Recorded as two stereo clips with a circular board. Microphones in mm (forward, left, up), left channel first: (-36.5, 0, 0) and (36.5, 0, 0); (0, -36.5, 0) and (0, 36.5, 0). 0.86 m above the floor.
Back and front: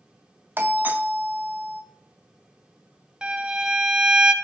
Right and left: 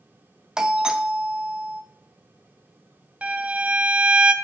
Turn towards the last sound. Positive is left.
turn(degrees=60)